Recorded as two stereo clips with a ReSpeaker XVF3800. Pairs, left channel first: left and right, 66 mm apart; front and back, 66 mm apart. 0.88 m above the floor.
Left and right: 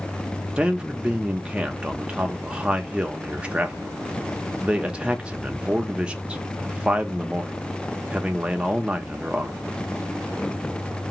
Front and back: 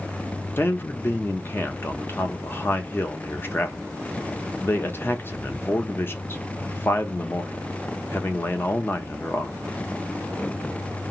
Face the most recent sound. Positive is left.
turn(degrees=-25)